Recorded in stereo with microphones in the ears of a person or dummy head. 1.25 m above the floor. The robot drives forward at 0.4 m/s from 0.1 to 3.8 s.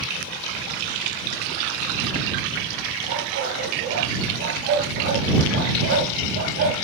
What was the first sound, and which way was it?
A dog barking, 55° right (ahead or behind).